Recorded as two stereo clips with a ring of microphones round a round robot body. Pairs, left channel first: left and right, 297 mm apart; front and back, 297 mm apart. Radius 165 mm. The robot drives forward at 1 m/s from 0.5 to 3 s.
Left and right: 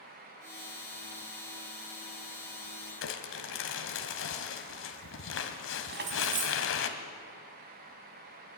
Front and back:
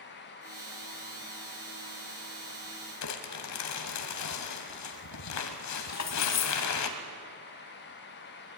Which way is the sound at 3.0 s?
40° left.